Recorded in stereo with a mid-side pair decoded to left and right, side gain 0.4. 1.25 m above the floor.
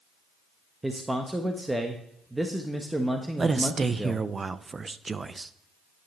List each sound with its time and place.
0.8 s a man speaking: 15° right, 1.1 m
3.4 s a man speaking: 35° right, 0.6 m